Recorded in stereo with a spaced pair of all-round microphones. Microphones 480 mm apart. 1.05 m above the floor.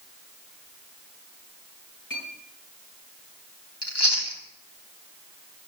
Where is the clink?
40° left (ahead or behind), 9.5 m.